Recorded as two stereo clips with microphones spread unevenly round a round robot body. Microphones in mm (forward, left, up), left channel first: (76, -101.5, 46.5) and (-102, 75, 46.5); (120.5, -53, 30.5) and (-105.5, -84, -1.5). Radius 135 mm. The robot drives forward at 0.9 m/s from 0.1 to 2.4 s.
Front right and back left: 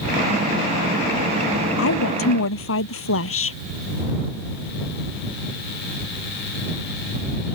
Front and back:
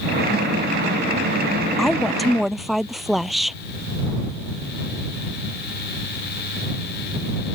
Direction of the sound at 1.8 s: 80° right.